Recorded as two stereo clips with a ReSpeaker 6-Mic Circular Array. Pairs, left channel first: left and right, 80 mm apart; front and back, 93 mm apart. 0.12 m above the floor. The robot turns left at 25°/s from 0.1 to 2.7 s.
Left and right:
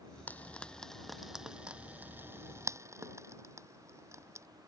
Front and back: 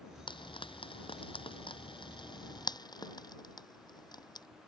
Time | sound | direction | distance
0.3 | frying | 25° left | ?